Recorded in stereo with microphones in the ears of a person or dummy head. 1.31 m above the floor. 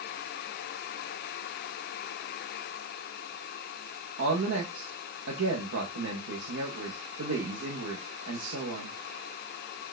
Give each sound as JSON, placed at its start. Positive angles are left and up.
{"t": 4.2, "sound": "a woman speaking", "side_deg": -85, "distance_m": 0.7}